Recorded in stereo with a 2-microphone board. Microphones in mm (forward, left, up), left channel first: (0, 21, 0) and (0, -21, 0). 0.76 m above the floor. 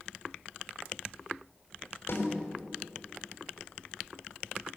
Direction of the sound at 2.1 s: 65° left (ahead or behind).